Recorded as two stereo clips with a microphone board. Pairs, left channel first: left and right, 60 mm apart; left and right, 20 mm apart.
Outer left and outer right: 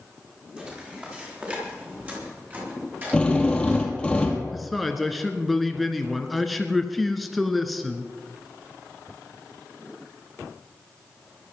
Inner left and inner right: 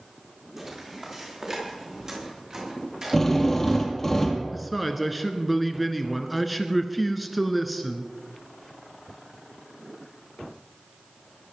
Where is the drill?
15° left (ahead or behind), 2.5 m.